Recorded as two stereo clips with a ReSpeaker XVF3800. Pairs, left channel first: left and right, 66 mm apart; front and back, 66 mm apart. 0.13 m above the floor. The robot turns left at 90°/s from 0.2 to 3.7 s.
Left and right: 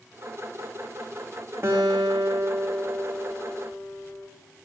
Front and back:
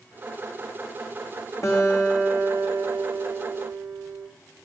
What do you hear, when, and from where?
1.6 s a guitar: 40° right, 3 m; by 4.3 s 135° left, 3 m